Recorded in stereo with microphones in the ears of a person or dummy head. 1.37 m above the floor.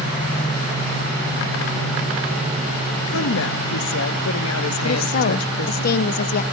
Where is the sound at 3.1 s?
80° left, 1.4 m.